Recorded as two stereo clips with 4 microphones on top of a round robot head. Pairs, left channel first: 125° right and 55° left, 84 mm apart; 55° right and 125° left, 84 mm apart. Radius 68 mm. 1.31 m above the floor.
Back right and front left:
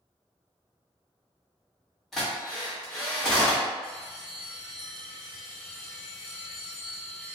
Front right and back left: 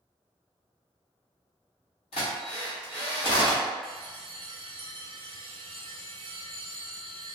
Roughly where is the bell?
Behind left.